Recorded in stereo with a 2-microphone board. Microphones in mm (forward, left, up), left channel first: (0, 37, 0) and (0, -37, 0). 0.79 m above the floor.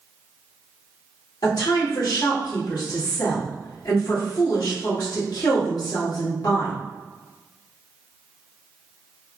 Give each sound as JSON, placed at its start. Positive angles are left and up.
{"t": 1.4, "sound": "a woman speaking", "side_deg": 65, "distance_m": 1.7}